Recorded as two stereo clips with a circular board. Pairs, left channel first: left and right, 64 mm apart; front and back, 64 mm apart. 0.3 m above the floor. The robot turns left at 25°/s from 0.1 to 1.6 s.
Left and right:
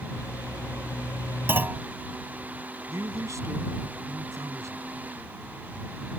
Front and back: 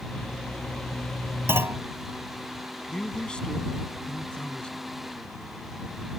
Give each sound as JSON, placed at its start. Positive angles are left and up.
{"t": 1.5, "sound": "a clunk", "azimuth_deg": -140}
{"t": 2.9, "sound": "a man speaking", "azimuth_deg": -75}